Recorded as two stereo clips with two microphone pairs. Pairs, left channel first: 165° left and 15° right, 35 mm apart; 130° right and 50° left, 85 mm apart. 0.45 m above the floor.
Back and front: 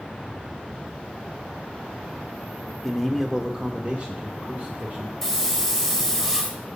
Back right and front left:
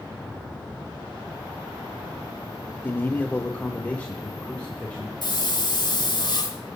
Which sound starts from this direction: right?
A hiss, at 5.2 s.